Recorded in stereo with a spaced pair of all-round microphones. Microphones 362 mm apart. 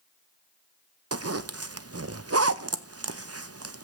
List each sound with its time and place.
1.1 s a zipper: 40° right (ahead or behind), 0.6 m